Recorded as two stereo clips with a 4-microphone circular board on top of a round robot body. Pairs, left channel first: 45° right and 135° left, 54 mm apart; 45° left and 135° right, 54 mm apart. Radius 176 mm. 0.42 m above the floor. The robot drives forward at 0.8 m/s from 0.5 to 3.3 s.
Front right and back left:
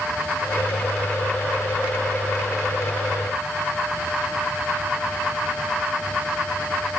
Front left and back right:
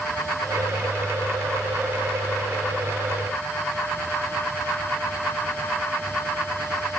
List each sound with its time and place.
Only background noise.